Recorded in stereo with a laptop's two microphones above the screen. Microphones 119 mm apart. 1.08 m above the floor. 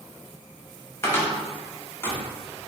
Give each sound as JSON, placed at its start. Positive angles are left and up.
{"t": 1.0, "sound": "a cupboard door", "side_deg": 20, "distance_m": 0.8}